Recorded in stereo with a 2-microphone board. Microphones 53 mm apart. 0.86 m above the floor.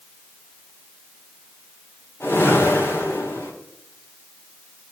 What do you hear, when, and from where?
2.2 s a whoosh: 45° left (ahead or behind), 3 m